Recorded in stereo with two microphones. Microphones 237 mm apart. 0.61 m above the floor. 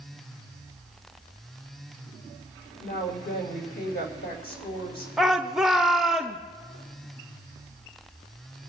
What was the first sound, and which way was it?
A woman speaking, 45° left (ahead or behind).